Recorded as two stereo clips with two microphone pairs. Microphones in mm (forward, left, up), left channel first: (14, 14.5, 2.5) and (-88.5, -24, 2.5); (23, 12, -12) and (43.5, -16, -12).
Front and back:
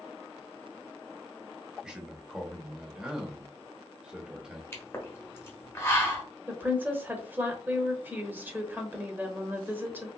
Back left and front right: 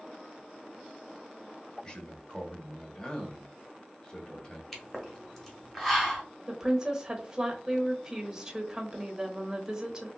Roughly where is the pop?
Ahead left.